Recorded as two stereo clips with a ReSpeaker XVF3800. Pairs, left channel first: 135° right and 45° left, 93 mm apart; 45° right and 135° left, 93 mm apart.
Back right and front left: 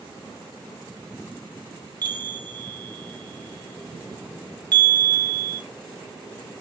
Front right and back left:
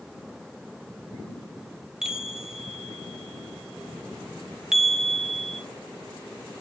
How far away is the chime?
About 0.9 m.